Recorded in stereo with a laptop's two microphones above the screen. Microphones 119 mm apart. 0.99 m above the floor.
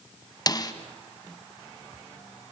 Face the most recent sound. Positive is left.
turn(degrees=35)  # may be behind; listen again after turning